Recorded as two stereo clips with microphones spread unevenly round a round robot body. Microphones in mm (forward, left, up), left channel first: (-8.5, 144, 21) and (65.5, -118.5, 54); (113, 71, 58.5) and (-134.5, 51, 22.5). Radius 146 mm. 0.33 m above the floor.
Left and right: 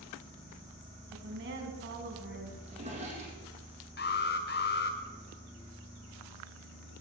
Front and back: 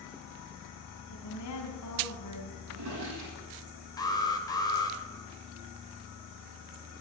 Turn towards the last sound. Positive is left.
turn(degrees=85)